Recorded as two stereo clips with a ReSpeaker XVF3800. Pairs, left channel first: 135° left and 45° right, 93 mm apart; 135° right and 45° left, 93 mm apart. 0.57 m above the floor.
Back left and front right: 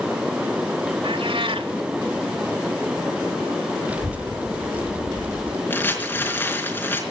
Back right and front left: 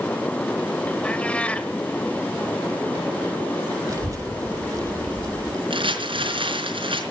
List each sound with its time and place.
1.0 s a cat meowing: 60° right, 1.2 m
3.9 s a child speaking: 20° left, 0.7 m
5.7 s crumpling: 65° left, 4 m